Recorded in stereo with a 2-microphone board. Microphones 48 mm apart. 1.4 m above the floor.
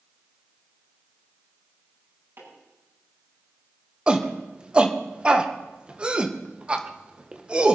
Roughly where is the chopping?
Right.